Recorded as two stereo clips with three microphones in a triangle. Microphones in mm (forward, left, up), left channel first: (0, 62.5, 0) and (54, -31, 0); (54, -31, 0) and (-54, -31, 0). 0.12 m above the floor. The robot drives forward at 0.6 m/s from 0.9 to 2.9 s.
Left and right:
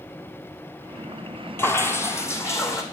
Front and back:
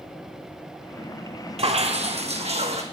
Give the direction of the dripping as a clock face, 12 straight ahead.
6 o'clock.